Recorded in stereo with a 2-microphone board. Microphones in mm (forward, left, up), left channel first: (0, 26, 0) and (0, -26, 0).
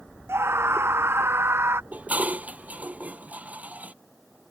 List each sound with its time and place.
0.3 s a scream: 60° right (ahead or behind); by 1.8 s 55° right (ahead or behind)
1.9 s dishes clattering: 30° right (ahead or behind)